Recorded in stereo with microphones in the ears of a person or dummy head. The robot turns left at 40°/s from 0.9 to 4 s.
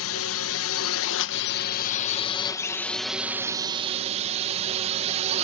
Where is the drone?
80° left; by 5.5 s 45° right.